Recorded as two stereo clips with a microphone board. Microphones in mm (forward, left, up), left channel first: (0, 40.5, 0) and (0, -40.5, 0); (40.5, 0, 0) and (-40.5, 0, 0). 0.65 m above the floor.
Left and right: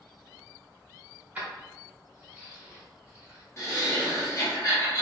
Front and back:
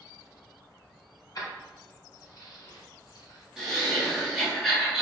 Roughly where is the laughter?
Left.